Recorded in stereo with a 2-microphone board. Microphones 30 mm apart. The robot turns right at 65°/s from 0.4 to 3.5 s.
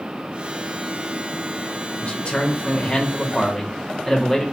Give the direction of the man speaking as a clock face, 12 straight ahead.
10 o'clock.